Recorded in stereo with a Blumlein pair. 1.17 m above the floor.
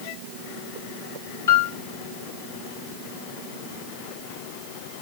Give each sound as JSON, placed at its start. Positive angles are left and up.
{"t": 1.5, "sound": "a piano", "azimuth_deg": 70, "distance_m": 3.5}